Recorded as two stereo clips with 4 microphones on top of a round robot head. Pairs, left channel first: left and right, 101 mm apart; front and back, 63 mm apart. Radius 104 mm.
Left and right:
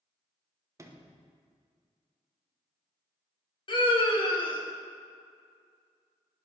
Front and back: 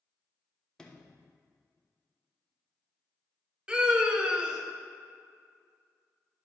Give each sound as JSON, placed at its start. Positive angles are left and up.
{"t": 0.8, "sound": "a sliding door", "azimuth_deg": -65, "distance_m": 1.1}
{"t": 3.7, "sound": "a scream", "azimuth_deg": 110, "distance_m": 1.6}